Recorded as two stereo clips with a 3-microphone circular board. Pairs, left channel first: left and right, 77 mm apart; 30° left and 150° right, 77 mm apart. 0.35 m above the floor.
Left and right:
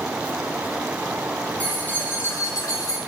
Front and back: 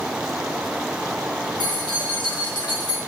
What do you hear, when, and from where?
1.6 s keys jangling: 20° left, 2.5 m; by 3.0 s 60° left, 2 m